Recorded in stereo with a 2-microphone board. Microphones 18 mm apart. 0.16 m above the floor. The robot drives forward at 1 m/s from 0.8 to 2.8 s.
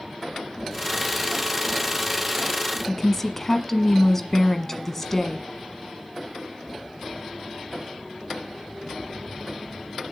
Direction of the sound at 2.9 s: 15° left (ahead or behind).